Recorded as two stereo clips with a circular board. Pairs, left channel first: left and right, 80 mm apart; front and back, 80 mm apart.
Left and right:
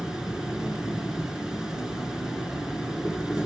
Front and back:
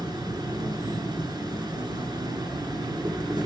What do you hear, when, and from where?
0.0 s an insect: 170° right, 1.4 m